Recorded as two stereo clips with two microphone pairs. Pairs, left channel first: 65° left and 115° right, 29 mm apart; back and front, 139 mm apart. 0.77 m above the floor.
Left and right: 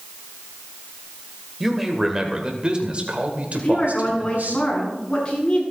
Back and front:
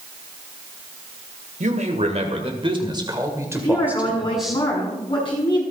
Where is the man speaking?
35° right, 2.5 m; by 4.6 s 95° right, 2.5 m.